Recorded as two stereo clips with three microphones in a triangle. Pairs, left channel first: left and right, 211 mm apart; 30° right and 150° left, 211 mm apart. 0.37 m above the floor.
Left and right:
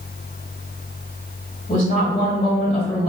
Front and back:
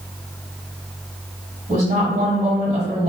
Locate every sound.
1.7 s a woman speaking: 130° left, 1.9 m